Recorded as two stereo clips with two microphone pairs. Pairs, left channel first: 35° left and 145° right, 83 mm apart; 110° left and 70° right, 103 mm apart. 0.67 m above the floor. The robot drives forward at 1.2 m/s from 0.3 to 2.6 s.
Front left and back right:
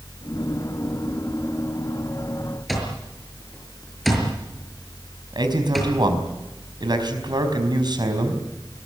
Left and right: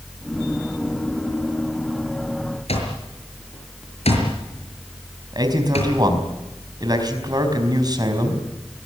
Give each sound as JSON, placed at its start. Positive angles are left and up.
{"t": 2.7, "sound": "an alarm clock", "azimuth_deg": 125, "distance_m": 6.5}
{"t": 5.3, "sound": "a man speaking", "azimuth_deg": -120, "distance_m": 5.0}